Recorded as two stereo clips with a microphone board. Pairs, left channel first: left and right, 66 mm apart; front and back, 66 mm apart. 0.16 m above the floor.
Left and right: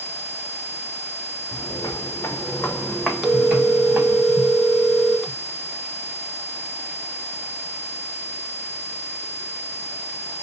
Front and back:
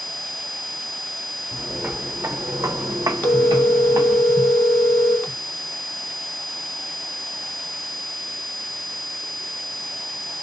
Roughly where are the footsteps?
Left.